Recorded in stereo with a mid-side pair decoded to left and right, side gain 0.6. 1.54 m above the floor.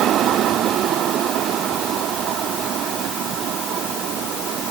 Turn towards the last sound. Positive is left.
No sound to turn to.